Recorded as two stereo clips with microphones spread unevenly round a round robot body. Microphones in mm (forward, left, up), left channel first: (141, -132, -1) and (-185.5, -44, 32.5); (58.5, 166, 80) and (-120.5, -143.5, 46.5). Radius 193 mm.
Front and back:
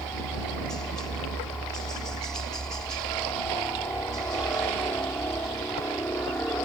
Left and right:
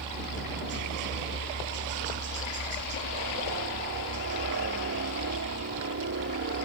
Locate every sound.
0.0 s a helicopter: 95° right